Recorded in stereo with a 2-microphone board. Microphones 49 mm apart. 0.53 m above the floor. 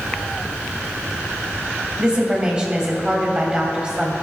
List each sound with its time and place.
2.0 s a woman speaking: 15° right (ahead or behind), 2.5 m